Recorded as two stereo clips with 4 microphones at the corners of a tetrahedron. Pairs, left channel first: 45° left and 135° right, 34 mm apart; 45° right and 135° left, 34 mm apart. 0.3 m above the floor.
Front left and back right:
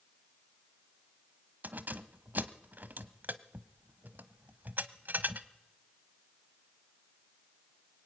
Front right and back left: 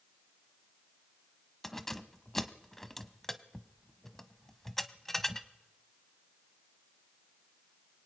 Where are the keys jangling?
125° right, 1.0 m.